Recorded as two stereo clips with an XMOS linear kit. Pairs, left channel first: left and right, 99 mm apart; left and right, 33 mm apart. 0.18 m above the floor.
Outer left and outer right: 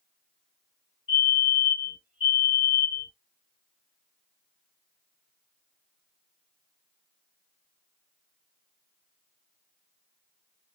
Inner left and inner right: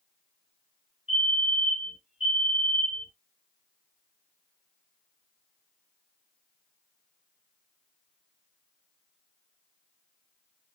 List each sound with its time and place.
1.1 s a fire alarm: 15° right (ahead or behind), 3 m